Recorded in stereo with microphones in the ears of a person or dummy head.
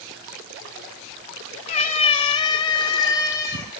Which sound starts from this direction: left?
A cat meowing, at 1.7 s.